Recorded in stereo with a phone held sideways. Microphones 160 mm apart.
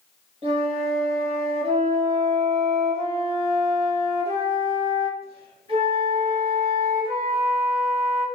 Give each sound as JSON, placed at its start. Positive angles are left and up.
{"t": 0.4, "sound": "a flute", "side_deg": -35, "distance_m": 1.5}